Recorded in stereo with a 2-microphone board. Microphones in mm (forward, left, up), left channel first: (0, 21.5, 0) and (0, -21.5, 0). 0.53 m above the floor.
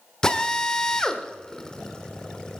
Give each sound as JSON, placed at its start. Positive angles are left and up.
{"t": 0.2, "sound": "a drill", "side_deg": 15, "distance_m": 1.0}